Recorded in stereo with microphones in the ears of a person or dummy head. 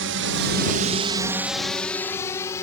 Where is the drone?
60° right (ahead or behind); by 2.6 s 20° left (ahead or behind).